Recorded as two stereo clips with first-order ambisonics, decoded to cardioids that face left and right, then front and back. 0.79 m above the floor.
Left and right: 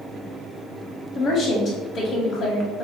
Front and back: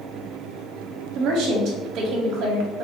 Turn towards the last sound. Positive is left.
turn(degrees=140)